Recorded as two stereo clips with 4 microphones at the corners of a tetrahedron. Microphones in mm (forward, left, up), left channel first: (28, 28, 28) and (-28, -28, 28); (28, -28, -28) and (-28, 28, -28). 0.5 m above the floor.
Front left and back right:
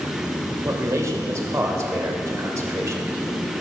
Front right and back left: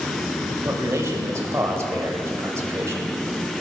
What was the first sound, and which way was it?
A man speaking, 175° right.